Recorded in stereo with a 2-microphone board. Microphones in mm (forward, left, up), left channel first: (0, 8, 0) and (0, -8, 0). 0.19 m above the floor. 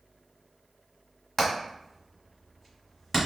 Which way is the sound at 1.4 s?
10° left (ahead or behind).